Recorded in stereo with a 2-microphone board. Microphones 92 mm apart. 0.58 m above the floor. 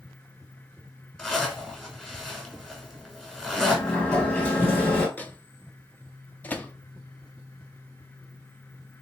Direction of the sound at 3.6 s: 20° left (ahead or behind).